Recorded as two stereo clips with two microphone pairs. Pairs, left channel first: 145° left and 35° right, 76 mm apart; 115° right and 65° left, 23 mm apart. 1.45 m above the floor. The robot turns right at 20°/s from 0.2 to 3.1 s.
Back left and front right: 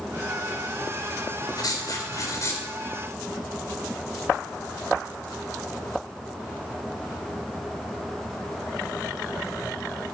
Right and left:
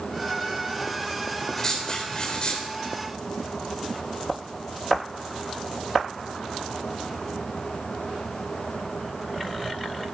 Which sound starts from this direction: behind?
Writing, at 1.6 s.